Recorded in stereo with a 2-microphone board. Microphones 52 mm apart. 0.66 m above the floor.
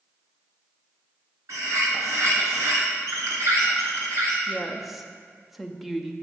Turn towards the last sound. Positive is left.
turn(degrees=-5)  # may be behind; listen again after turning